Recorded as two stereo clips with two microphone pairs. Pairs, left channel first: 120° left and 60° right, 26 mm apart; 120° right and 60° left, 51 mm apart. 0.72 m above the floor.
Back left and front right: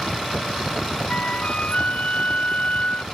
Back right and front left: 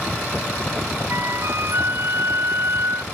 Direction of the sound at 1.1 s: 90° left.